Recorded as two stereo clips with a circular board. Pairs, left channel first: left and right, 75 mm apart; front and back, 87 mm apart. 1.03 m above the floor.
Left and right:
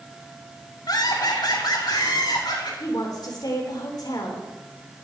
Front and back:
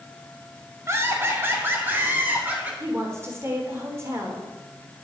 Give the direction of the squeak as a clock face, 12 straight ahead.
I don't hear a squeak.